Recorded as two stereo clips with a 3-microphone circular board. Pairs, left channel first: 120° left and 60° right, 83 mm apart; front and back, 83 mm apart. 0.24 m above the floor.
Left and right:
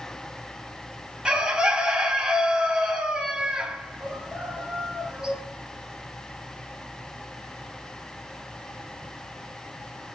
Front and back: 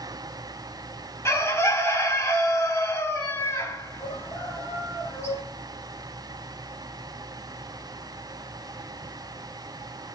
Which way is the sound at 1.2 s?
10° left.